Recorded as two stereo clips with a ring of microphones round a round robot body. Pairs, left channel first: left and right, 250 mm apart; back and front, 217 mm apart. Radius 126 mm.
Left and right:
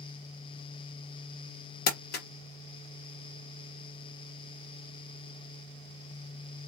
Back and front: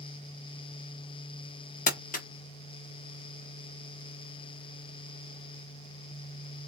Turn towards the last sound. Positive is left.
turn(degrees=135)